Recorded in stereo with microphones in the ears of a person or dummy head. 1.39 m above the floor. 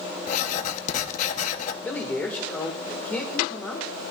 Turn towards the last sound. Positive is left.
turn(degrees=15)  # may be behind; listen again after turning